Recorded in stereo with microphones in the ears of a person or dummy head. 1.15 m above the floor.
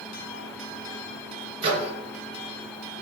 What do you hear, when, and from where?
1.6 s a microwave: 30° right (ahead or behind), 0.9 m